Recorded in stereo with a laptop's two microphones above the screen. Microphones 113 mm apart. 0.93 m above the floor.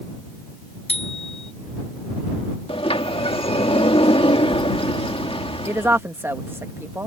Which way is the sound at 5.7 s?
20° right (ahead or behind).